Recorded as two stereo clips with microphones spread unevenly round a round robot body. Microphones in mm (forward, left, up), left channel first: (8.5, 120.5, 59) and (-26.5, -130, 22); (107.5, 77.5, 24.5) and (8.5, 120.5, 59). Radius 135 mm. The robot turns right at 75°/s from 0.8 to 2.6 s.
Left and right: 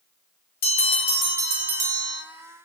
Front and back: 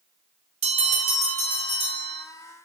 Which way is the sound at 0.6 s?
140° left.